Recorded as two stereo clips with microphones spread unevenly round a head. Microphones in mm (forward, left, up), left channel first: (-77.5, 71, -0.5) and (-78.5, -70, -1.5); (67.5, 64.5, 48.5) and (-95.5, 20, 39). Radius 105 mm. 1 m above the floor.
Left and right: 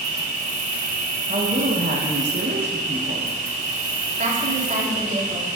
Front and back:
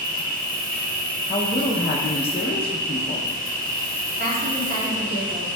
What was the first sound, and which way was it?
An insect, 115° right.